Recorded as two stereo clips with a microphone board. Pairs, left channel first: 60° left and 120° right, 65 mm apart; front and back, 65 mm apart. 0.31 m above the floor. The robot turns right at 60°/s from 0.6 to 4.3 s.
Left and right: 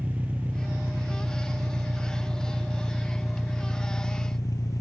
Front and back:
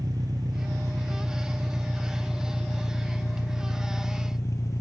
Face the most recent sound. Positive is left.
turn(degrees=35)